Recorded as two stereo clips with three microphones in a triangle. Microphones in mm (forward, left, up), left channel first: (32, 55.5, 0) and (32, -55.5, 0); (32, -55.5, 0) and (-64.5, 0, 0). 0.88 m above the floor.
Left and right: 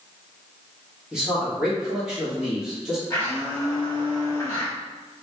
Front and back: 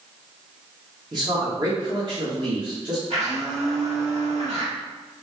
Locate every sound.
1.1 s a man speaking: 170° right, 1.3 m
3.1 s a blender: 155° left, 1.7 m